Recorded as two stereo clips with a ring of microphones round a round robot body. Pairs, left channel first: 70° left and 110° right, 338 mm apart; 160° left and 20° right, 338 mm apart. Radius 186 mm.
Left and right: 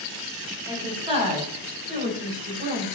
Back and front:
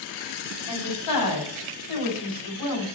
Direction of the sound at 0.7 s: 170° left.